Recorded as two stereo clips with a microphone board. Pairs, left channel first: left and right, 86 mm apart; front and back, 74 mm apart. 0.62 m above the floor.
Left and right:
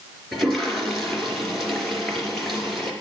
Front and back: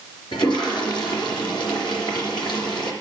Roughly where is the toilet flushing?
Ahead.